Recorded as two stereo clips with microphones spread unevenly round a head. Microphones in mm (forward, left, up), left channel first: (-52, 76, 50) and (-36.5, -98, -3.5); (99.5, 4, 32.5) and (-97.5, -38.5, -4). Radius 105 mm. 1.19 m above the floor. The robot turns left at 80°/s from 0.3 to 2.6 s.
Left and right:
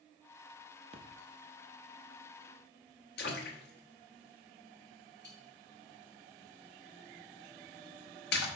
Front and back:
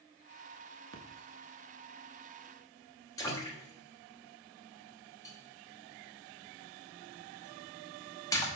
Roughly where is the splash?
Behind right.